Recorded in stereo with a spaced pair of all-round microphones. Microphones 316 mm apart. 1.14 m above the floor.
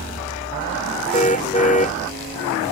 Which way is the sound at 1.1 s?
25° left (ahead or behind).